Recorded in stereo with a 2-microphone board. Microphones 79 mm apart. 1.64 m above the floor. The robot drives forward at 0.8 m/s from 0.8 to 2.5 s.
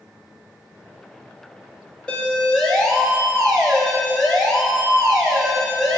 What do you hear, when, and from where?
2.1 s a siren: 10° left (ahead or behind), 3 m; by 6.0 s 5° left (ahead or behind), 5 m